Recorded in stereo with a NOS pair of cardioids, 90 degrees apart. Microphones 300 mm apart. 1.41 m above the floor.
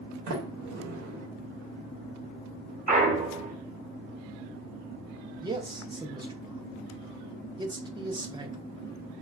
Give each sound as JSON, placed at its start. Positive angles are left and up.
{"t": 0.3, "sound": "a sliding door", "azimuth_deg": -70, "distance_m": 1.0}
{"t": 2.9, "sound": "a clunk", "azimuth_deg": -25, "distance_m": 1.0}
{"t": 5.4, "sound": "a man speaking", "azimuth_deg": -15, "distance_m": 0.6}